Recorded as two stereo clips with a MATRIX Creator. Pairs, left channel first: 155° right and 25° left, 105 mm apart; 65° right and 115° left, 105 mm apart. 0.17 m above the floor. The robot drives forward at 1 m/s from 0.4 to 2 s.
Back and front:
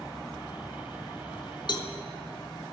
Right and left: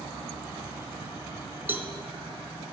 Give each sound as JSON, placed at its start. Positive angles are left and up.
{"t": 1.7, "sound": "a cowbell", "azimuth_deg": 175, "distance_m": 0.6}